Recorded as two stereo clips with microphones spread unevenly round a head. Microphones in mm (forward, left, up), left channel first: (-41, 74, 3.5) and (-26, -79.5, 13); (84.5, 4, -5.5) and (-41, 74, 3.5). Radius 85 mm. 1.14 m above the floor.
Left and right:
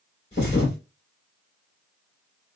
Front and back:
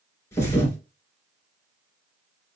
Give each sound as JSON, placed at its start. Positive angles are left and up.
{"t": 0.3, "sound": "a thud", "azimuth_deg": 40, "distance_m": 2.5}